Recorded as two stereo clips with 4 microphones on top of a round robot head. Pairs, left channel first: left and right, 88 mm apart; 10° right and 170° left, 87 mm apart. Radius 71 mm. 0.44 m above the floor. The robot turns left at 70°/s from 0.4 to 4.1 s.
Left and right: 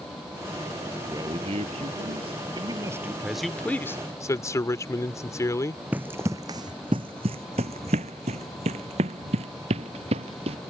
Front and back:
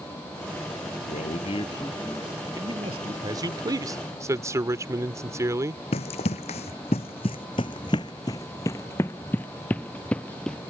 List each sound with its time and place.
1.1 s a man speaking: 20° right; by 3.1 s 165° right
3.2 s a man speaking: 170° right; by 5.8 s 130° left
5.9 s running footsteps: 10° right; by 10.6 s 95° right